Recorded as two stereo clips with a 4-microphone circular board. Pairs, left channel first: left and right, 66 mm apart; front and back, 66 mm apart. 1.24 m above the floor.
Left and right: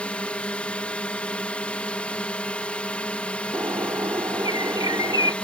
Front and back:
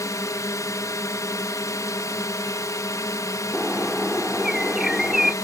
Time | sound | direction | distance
0.0 | a drone | 25° left | ?
3.5 | a bird | 95° right | ?